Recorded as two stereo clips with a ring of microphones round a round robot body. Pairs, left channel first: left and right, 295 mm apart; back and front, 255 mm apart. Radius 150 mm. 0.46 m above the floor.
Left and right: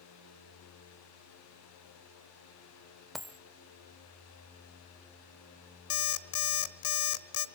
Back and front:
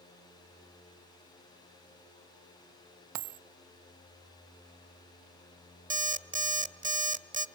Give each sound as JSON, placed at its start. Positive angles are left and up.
{"t": 3.1, "sound": "a dropped coin", "azimuth_deg": 0, "distance_m": 0.7}
{"t": 5.9, "sound": "an alarm clock", "azimuth_deg": 60, "distance_m": 1.1}